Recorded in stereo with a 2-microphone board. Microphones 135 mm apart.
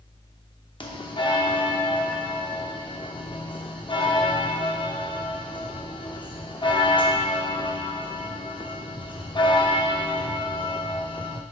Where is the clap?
I don't hear a clap.